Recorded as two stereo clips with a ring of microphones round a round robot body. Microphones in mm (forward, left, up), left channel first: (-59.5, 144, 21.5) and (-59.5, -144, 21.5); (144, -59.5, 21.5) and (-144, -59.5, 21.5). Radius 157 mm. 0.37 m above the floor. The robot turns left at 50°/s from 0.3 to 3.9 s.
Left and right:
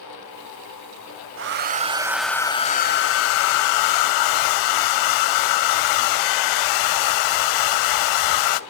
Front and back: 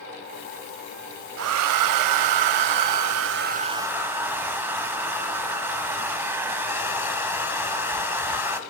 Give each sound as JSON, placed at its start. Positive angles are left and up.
{"t": 1.4, "sound": "a hair dryer", "azimuth_deg": -135, "distance_m": 0.6}